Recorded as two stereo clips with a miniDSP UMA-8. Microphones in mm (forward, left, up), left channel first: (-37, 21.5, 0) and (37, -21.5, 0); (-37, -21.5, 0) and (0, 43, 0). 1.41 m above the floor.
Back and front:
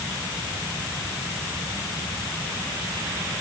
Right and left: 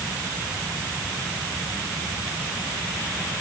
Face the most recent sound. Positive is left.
No sound to turn to.